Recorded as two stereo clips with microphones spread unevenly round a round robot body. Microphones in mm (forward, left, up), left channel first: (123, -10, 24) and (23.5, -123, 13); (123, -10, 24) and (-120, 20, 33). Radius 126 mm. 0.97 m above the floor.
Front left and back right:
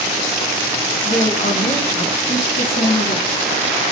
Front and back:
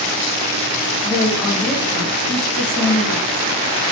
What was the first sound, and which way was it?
A woman speaking, 65° left.